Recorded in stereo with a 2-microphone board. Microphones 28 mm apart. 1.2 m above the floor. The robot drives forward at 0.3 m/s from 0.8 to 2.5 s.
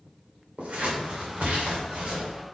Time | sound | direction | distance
0.6 | scissors | 50° right (ahead or behind) | 2.5 m